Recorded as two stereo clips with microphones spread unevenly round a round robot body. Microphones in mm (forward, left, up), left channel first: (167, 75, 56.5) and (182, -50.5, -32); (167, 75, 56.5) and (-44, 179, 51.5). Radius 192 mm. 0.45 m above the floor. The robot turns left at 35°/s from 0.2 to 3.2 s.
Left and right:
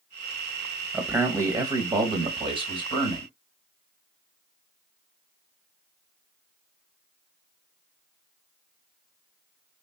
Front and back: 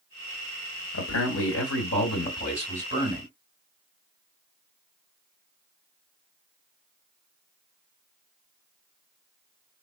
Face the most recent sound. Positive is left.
turn(degrees=-105)